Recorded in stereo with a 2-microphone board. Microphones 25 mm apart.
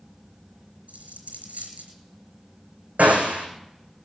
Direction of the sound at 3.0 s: 85° right.